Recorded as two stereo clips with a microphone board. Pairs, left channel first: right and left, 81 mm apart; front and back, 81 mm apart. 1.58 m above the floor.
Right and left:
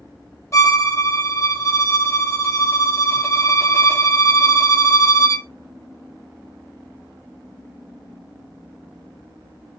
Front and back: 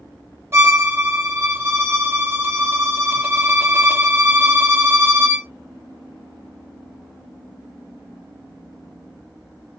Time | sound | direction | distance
0.5 | a violin | 130° right | 1.0 m